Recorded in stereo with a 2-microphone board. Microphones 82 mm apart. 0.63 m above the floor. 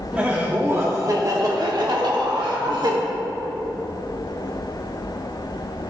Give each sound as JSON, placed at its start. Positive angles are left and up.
{"t": 0.1, "sound": "laughter", "side_deg": -15, "distance_m": 0.9}